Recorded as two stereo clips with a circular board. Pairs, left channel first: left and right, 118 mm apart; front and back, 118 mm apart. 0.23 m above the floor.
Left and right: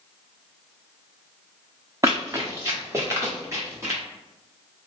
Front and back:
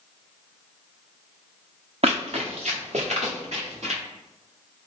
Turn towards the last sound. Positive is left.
turn(degrees=-155)